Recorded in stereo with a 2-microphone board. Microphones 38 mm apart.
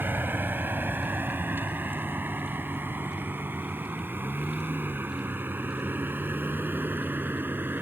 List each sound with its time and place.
0.0 s a vehicle: 60° right (ahead or behind)